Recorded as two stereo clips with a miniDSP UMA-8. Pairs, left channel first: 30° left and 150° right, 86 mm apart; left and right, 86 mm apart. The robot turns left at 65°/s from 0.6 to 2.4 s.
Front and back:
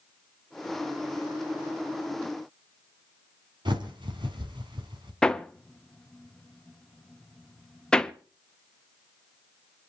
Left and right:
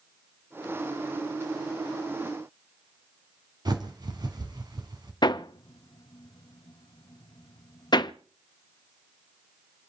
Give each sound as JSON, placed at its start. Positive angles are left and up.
{"t": 3.6, "sound": "a bird", "azimuth_deg": -125, "distance_m": 3.0}
{"t": 5.2, "sound": "hammering", "azimuth_deg": 110, "distance_m": 0.7}